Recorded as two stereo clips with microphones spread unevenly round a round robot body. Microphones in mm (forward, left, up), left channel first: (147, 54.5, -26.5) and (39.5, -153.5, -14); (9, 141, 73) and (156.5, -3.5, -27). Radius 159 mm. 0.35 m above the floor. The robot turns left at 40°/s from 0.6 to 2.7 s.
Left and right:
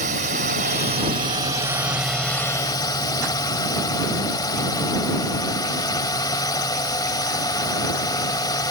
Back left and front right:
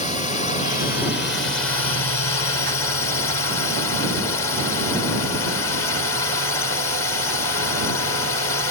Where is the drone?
145° right; by 8.7 s 130° left.